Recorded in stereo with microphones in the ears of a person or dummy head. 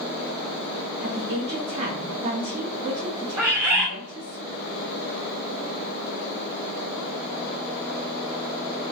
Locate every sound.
1.0 s a woman speaking: 35° right (ahead or behind), 0.9 m
3.4 s a bird: 20° right (ahead or behind), 1.7 m